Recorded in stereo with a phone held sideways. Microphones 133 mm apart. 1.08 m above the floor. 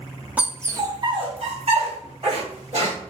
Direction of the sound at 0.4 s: 10° right (ahead or behind).